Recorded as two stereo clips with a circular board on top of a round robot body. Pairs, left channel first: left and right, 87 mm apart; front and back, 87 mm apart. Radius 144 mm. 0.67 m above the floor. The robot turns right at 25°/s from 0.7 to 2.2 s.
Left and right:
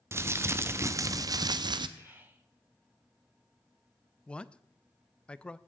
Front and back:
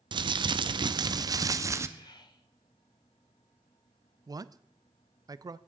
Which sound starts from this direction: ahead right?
Whispering, at 2.0 s.